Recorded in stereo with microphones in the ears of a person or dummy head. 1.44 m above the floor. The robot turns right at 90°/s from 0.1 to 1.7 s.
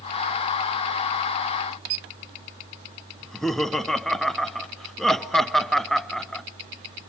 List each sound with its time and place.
3.2 s laughter: centre (ahead or behind), 0.7 m